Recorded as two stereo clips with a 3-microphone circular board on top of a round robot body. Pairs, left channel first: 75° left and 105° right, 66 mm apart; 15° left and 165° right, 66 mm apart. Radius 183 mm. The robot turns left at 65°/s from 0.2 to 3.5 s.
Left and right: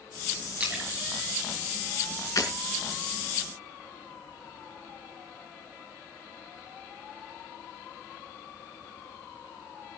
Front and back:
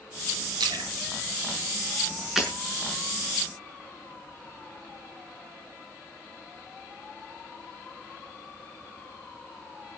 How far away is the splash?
About 3.5 m.